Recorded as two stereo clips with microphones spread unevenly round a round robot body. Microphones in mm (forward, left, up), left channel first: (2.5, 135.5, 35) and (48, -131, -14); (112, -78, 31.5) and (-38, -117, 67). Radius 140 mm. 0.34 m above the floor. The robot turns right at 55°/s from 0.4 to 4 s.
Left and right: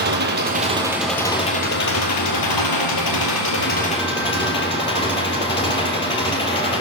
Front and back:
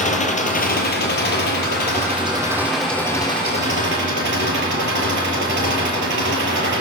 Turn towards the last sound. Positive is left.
turn(degrees=170)